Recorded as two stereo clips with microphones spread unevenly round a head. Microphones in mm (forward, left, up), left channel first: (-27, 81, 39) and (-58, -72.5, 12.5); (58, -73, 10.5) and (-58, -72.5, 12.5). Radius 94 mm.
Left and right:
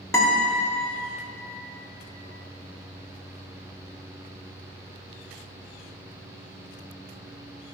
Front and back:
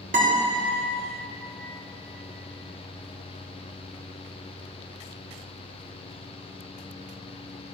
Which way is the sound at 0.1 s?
155° left.